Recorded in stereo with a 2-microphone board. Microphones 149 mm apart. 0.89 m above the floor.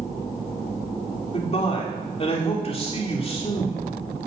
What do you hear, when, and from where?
1.3 s a man speaking: 40° left (ahead or behind), 3 m